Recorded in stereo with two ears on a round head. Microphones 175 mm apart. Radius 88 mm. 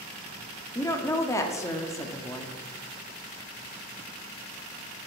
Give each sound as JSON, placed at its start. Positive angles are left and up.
{"t": 0.8, "sound": "a woman speaking", "side_deg": 15, "distance_m": 0.8}